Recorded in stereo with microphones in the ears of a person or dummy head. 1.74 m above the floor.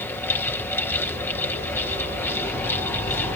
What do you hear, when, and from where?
0.0 s a fan: 15° left (ahead or behind)